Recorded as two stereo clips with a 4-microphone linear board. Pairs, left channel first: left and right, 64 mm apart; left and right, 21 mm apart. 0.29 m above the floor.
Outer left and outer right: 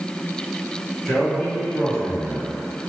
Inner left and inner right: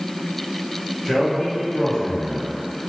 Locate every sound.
1.1 s a man speaking: 10° left (ahead or behind), 1.5 m